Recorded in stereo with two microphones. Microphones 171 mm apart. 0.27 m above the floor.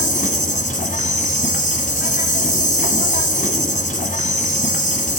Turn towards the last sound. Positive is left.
turn(degrees=45)  # may be behind; listen again after turning